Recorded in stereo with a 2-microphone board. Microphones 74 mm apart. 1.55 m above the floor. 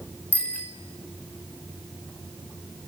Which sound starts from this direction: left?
A bicycle bell, at 0.3 s.